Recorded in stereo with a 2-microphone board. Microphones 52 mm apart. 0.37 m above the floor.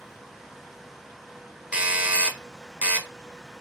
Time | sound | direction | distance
1.7 | a doorbell | 20° right (ahead or behind) | 1.4 m